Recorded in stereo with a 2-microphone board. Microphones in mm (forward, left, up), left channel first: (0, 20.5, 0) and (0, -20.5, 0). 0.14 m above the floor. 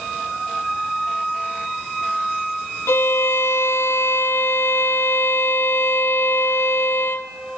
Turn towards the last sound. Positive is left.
turn(degrees=80)